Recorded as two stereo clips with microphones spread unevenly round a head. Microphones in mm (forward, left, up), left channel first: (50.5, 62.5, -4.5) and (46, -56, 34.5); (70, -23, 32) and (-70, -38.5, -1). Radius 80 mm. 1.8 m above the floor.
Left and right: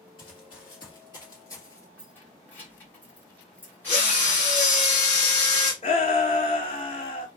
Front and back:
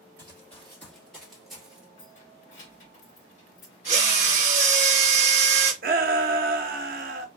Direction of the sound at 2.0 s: Straight ahead.